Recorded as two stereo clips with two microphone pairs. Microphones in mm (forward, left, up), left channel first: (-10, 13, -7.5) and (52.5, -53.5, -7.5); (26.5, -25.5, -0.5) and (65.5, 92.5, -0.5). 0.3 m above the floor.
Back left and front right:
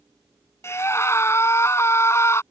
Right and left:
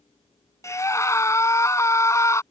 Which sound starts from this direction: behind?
A scream, at 0.6 s.